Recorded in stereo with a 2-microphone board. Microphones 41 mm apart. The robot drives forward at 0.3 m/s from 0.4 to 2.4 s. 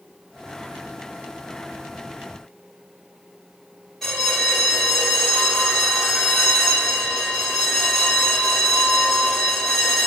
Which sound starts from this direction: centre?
A bell, at 4.0 s.